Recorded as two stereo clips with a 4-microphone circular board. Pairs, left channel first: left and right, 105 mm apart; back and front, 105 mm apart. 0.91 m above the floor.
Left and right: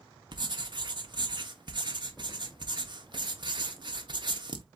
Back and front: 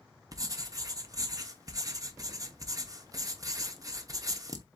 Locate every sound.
0.3 s writing: 55° right, 0.9 m